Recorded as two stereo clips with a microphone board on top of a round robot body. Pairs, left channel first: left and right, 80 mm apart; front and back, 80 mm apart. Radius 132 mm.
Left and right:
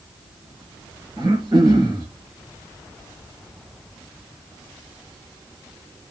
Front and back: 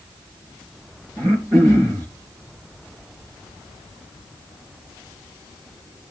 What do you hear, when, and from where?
1.2 s throat clearing: 130° right, 7 m